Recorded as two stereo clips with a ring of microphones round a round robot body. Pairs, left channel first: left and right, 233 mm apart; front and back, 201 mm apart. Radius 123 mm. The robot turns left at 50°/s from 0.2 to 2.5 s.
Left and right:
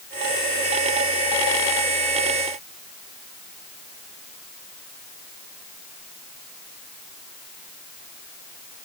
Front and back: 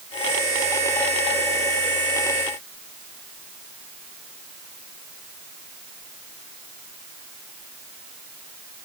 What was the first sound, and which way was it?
Only background noise.